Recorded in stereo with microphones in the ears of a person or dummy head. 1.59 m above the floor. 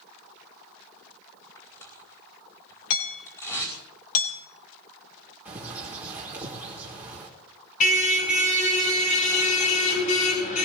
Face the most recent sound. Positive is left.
turn(degrees=45)  # may be behind; listen again after turning